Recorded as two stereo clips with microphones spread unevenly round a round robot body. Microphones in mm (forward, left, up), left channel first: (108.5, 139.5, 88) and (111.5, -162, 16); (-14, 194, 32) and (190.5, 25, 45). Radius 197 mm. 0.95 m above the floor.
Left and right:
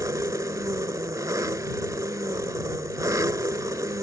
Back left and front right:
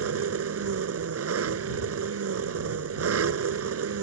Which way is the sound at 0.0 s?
10° right.